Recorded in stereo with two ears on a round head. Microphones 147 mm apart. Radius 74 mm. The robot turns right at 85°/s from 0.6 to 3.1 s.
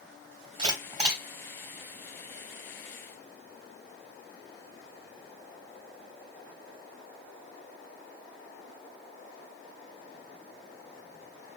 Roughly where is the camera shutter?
Right.